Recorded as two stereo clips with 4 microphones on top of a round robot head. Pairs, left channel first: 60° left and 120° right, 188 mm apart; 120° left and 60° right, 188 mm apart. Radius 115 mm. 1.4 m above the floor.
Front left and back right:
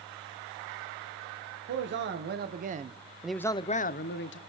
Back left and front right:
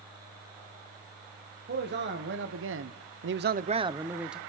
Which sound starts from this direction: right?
A man speaking, at 1.7 s.